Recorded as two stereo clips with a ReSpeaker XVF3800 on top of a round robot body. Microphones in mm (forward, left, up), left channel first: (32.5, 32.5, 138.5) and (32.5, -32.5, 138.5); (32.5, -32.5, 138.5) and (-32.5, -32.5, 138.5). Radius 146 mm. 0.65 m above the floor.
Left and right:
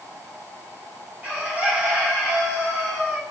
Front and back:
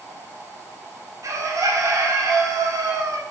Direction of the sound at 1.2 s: 155° right.